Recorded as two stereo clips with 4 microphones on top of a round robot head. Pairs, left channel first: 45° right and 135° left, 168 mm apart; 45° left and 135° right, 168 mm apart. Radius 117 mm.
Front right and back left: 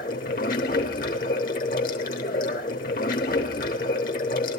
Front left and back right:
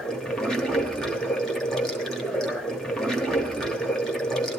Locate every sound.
0.0 s running water: 40° right, 0.9 m